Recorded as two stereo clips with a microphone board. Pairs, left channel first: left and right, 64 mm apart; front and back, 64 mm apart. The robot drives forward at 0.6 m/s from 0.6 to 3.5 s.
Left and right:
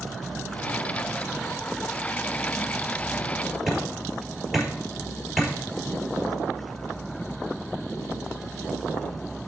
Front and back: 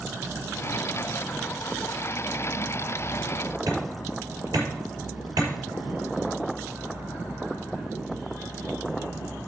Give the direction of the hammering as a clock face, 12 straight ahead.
6 o'clock.